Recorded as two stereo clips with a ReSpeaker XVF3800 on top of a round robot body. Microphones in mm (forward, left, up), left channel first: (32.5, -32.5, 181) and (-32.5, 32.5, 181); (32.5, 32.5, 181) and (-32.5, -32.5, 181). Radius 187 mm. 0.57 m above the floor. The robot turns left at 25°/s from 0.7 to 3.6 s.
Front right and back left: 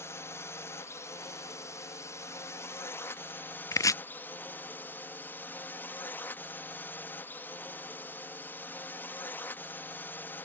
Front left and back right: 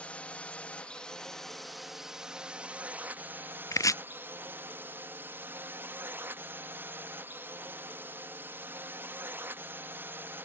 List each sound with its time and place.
0.0 s a drone: 20° right; by 10.5 s 95° right
3.7 s chopping: straight ahead